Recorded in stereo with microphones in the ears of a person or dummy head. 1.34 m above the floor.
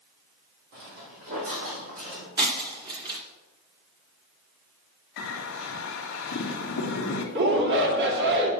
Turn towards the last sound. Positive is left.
turn(degrees=-55)  # may be behind; listen again after turning